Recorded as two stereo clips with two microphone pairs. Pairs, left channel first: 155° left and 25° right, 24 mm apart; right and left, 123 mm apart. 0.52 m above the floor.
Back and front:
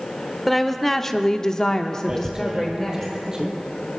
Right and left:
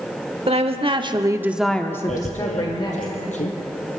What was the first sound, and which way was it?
A woman speaking, 70° left.